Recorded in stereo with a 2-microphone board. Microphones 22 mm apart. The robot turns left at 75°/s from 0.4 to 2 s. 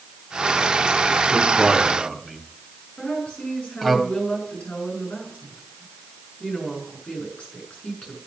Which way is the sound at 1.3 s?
35° right (ahead or behind).